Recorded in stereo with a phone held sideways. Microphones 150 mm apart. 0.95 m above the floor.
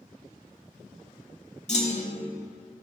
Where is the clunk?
50° left (ahead or behind), 1.6 m.